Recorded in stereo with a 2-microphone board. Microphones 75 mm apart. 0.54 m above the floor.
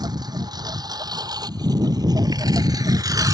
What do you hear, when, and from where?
0.0 s a lawn mower: 65° right (ahead or behind); by 3.3 s 55° right (ahead or behind)